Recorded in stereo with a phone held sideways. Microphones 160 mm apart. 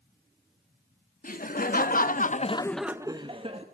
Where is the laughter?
60° left (ahead or behind), 1.9 m; by 3.6 s 40° right (ahead or behind), 1.4 m.